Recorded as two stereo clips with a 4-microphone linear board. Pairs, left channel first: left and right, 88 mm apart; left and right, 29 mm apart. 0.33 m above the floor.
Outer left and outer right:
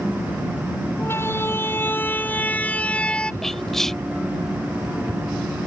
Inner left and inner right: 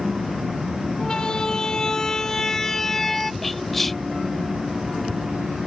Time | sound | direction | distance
1.0 | a siren | 30° left (ahead or behind) | ?
3.4 | whispering | 5° left (ahead or behind) | ?